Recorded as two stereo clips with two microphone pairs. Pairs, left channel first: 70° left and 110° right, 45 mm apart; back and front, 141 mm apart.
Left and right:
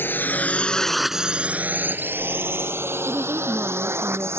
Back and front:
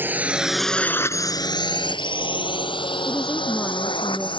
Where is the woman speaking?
90° right.